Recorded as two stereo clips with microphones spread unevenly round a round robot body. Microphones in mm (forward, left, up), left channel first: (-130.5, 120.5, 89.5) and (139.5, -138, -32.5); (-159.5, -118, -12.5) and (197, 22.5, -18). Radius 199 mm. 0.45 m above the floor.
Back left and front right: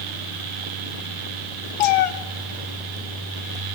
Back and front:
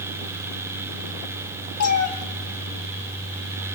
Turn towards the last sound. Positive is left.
turn(degrees=145)